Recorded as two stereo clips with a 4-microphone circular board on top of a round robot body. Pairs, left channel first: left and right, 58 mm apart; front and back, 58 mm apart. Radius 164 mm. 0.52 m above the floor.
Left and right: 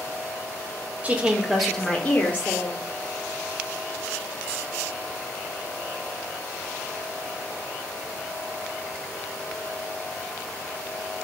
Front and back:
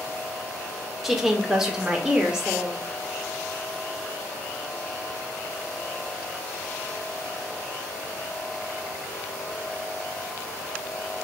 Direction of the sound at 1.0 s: 100° right.